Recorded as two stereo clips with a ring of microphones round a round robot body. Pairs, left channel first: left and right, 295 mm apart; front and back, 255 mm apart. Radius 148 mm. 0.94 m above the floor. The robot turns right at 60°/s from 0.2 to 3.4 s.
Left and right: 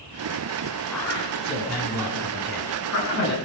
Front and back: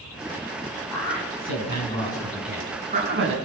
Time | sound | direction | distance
0.9 | a man speaking | straight ahead | 9.5 m